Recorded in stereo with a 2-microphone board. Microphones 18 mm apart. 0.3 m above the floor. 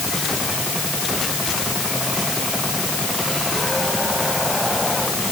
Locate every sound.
Only background noise.